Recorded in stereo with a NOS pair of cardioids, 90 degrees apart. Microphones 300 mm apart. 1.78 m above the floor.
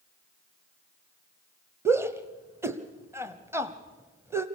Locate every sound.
1.9 s a shout: 10° right, 0.9 m